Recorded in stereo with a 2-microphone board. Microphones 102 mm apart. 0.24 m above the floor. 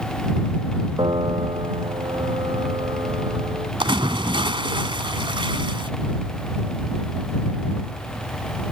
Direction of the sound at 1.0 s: 55° right (ahead or behind).